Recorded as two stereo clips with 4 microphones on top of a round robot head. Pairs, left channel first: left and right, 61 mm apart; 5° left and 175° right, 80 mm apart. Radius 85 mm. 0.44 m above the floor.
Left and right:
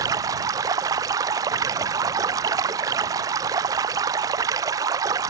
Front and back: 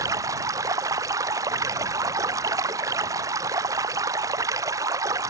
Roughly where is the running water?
Behind right.